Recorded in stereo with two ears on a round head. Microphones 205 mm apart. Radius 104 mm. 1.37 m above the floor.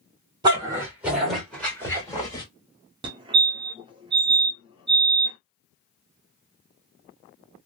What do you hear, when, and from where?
0.4 s a dog barking: 20° right (ahead or behind), 1.1 m; by 2.5 s 20° left (ahead or behind), 1.5 m
3.0 s a fire alarm: 20° right (ahead or behind), 0.7 m